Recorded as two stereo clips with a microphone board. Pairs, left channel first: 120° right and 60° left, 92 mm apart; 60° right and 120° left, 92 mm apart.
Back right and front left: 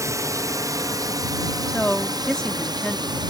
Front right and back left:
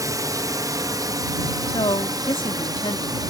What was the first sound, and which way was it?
A drone, 95° left.